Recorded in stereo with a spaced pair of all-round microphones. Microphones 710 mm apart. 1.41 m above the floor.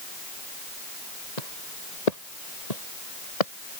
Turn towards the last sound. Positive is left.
turn(degrees=55)  # may be behind; listen again after turning